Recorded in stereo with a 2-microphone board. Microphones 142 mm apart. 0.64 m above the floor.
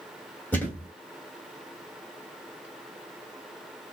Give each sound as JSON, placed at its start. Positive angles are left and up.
{"t": 0.5, "sound": "a thud", "side_deg": 10, "distance_m": 1.6}